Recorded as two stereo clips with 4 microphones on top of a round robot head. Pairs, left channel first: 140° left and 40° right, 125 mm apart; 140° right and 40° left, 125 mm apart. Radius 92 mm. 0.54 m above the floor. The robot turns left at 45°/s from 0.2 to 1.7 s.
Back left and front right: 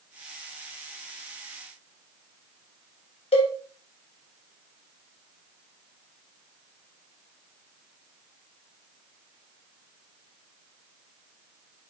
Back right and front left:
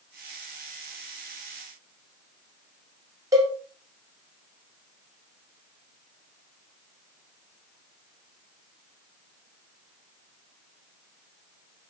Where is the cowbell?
100° left, 2 m.